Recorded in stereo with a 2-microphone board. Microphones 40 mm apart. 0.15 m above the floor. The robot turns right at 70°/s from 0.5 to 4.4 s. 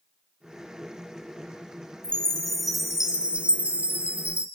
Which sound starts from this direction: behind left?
A chime, at 2.0 s.